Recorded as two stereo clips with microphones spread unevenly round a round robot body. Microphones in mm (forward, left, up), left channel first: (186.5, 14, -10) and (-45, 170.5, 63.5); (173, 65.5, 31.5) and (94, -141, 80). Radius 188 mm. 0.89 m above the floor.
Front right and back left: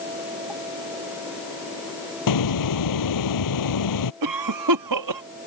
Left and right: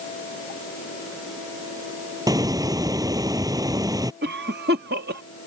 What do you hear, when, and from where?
2.3 s a hiss: 40° right
4.2 s a cough: 170° right